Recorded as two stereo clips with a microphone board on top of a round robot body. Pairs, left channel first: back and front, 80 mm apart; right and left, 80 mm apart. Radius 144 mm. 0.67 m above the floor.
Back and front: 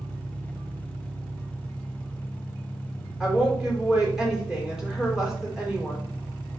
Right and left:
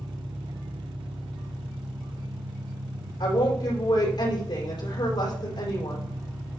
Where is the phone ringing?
No phone ringing in this recording.